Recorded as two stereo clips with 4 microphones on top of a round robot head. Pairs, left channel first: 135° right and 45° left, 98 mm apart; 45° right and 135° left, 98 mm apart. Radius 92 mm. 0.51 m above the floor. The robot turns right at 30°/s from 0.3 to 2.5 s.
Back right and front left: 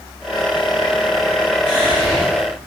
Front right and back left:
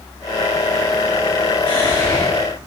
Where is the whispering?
115° right, 1.9 m; by 2.3 s 95° right, 1.9 m.